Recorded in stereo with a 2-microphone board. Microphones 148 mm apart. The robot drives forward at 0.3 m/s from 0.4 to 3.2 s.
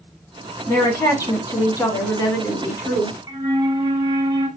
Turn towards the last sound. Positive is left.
turn(degrees=-25)  # may be behind; listen again after turning